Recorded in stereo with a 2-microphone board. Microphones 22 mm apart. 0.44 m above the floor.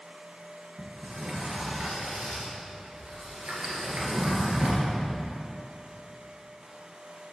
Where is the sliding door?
85° right, 2 m.